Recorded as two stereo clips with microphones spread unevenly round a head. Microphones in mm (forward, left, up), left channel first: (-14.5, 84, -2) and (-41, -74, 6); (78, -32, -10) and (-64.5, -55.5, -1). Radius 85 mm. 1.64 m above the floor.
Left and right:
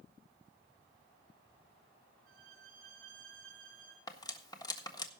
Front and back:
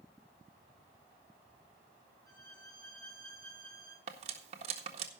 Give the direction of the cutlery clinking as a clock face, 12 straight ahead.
7 o'clock.